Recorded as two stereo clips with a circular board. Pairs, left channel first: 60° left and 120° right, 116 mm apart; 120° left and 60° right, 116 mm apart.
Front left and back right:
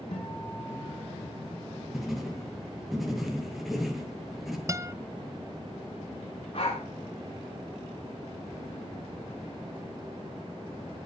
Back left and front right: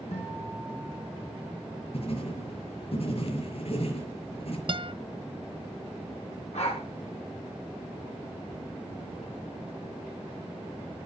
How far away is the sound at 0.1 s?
About 9 m.